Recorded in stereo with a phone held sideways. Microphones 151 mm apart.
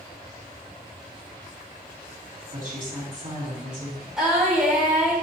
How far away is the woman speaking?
About 3 m.